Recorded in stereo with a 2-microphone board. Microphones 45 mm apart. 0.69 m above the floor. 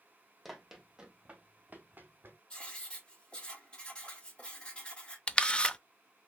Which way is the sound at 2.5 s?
20° left (ahead or behind).